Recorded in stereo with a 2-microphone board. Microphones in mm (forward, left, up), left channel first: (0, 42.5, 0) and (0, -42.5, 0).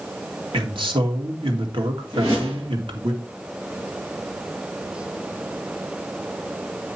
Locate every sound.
0.5 s a man speaking: 80° right, 2 m
2.1 s a whoosh: 35° right (ahead or behind), 7.5 m